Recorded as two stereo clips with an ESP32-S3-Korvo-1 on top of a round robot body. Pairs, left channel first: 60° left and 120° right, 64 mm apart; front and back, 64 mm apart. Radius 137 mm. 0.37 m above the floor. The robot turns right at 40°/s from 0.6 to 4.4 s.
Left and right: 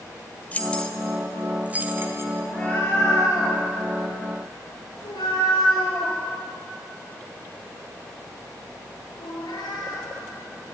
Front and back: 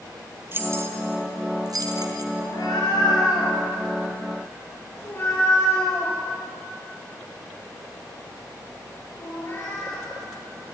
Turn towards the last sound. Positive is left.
turn(degrees=60)